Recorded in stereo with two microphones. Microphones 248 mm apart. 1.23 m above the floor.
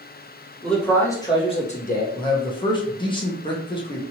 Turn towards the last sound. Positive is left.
turn(degrees=20)  # may be behind; listen again after turning